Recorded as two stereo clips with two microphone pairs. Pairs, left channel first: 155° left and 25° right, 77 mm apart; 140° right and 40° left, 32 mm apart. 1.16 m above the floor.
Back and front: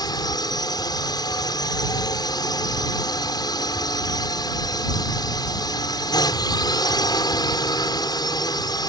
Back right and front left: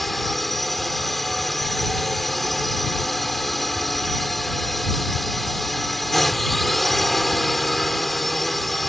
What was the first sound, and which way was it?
A drone, 135° left.